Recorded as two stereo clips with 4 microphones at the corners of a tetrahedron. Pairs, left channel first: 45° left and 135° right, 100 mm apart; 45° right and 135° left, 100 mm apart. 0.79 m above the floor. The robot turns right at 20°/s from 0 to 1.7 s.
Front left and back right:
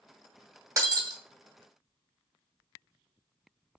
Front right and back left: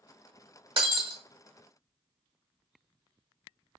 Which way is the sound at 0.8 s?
170° left.